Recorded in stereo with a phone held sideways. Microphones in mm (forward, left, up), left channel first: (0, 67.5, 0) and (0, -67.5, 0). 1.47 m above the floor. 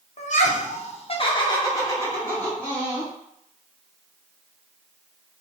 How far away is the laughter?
About 0.8 m.